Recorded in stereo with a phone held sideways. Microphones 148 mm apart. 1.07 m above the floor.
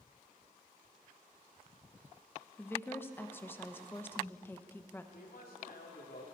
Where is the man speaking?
75° left (ahead or behind), 3 m.